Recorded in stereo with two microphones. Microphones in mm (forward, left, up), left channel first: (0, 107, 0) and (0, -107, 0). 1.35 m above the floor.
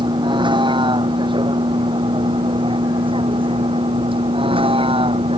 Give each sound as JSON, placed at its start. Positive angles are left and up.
{"t": 0.0, "sound": "a vehicle", "side_deg": -20}